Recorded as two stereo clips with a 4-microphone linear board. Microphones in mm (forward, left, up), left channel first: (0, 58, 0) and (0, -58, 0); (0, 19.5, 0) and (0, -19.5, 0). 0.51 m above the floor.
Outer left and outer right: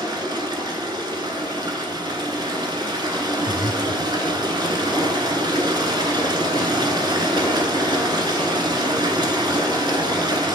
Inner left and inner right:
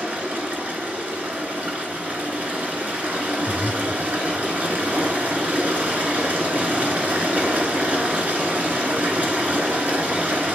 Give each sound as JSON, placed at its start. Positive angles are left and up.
{"t": 0.0, "sound": "running water", "side_deg": -40, "distance_m": 1.2}
{"t": 3.5, "sound": "breathing", "side_deg": 55, "distance_m": 0.5}